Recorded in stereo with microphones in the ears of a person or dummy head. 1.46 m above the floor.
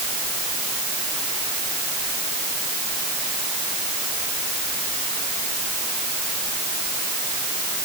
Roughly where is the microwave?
I don't hear a microwave.